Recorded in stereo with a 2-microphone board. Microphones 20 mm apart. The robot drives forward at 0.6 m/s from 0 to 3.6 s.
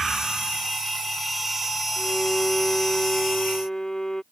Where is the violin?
25° left (ahead or behind).